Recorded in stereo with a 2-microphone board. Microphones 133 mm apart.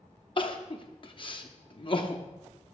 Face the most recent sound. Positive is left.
turn(degrees=40)  # may be behind; listen again after turning